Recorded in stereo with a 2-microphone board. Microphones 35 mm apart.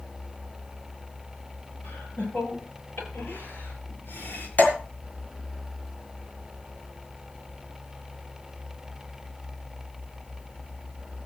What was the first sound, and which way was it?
Laughter, 75° left (ahead or behind).